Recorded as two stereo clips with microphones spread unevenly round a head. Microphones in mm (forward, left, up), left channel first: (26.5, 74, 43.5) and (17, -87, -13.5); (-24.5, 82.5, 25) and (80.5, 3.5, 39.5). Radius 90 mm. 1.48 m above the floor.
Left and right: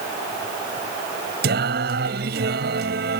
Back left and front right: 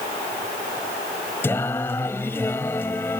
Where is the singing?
135° right.